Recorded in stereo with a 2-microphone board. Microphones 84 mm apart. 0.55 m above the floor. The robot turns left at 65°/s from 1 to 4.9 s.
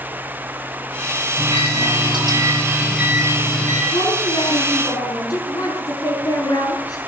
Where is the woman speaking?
115° left, 5.5 m; by 7.0 s 50° left, 5.5 m.